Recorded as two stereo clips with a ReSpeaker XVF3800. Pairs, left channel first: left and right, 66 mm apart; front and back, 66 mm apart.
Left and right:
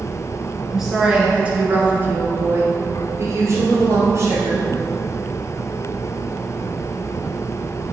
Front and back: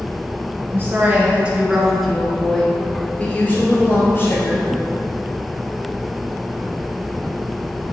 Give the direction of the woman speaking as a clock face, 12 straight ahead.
6 o'clock.